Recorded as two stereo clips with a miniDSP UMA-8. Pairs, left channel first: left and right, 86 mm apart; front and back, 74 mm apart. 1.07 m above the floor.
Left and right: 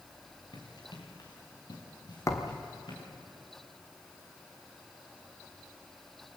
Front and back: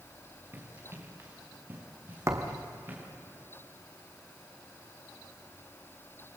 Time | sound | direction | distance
0.5 | running footsteps | 125° left | 5 m
2.3 | a thud | 135° left | 2 m